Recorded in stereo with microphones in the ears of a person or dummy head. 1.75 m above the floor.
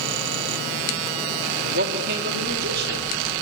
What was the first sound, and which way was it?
A man speaking, 60° right (ahead or behind).